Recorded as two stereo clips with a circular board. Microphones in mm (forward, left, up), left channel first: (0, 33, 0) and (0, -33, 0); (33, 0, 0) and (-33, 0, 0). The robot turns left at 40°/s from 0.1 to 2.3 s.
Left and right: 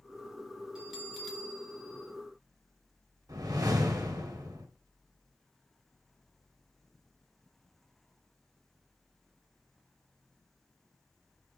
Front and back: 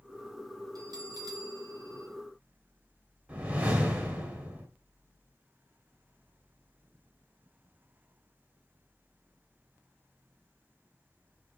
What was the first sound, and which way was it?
A bell, 165° right.